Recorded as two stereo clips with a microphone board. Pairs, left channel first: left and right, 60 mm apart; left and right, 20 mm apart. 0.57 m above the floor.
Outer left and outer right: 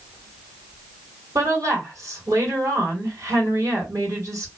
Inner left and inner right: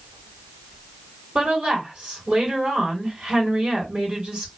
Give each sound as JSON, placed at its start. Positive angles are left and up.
{"t": 1.4, "sound": "a woman speaking", "side_deg": -65, "distance_m": 1.7}